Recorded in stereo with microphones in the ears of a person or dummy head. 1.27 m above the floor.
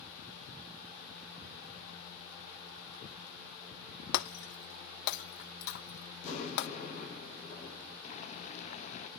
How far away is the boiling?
About 0.7 m.